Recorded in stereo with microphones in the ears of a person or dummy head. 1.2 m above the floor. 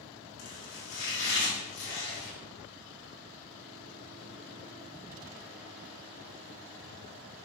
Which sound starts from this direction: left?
Chopping, at 0.4 s.